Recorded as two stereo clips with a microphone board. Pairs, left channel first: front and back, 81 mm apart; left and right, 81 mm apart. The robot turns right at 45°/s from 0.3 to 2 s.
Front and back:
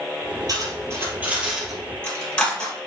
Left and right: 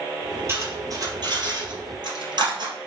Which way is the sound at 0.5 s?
145° right.